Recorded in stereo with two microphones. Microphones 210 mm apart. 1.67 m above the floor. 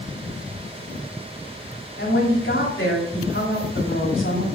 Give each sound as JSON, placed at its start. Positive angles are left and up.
{"t": 2.0, "sound": "a woman speaking", "side_deg": 70, "distance_m": 3.0}